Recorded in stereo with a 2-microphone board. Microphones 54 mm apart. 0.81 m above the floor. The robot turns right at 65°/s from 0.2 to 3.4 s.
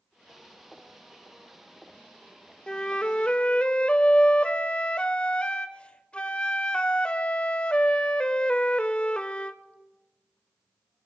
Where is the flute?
15° left (ahead or behind), 0.5 m; by 9.6 s 20° left (ahead or behind), 0.5 m.